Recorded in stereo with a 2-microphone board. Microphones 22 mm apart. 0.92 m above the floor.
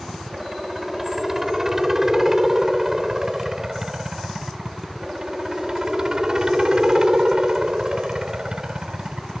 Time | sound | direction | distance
0.0 | a helicopter | 15° right (ahead or behind) | ?